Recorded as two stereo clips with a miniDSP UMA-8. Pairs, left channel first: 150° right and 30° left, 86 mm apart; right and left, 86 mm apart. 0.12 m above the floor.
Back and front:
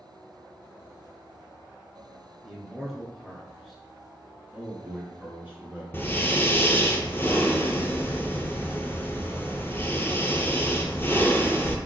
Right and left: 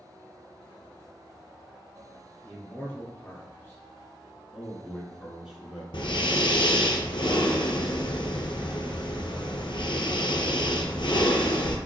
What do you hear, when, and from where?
2.4 s a man speaking: 55° right, 1.2 m
4.5 s a man speaking: 10° left, 1.1 m
5.9 s breathing: 90° right, 0.6 m